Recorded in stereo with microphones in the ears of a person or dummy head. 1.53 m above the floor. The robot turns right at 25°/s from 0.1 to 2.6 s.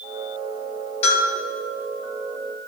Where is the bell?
25° left (ahead or behind), 2 m; by 1.3 s 35° left (ahead or behind), 2 m.